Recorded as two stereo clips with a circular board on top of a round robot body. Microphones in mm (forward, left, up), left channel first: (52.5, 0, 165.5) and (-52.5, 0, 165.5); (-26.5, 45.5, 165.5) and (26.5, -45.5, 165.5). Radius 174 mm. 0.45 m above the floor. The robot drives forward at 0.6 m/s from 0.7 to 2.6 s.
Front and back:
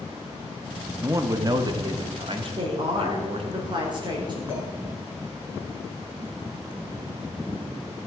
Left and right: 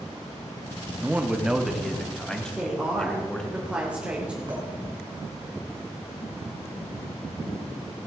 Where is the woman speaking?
140° right, 2.5 m.